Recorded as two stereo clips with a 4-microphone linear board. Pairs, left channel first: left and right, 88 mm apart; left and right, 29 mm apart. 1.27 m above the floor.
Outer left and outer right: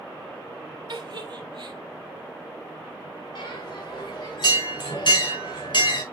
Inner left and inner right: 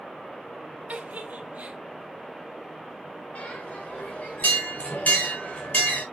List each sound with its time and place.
0.9 s a giggle: 60° right (ahead or behind), 1.2 m
3.4 s a bell: 65° left (ahead or behind), 3 m